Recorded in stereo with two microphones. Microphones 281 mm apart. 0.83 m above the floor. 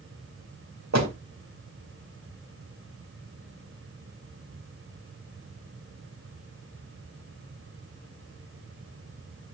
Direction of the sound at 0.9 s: 70° right (ahead or behind).